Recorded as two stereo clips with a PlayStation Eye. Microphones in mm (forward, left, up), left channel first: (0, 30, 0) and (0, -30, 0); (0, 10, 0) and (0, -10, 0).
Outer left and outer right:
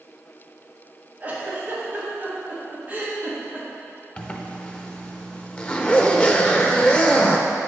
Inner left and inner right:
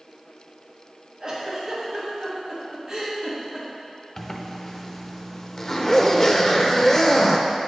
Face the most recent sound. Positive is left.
turn(degrees=20)  # may be behind; listen again after turning